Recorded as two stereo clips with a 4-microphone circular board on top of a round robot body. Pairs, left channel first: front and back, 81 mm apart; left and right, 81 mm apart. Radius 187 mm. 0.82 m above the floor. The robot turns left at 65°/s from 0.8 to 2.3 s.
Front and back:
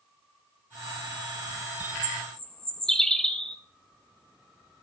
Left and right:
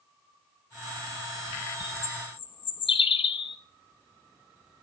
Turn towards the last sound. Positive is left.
turn(degrees=85)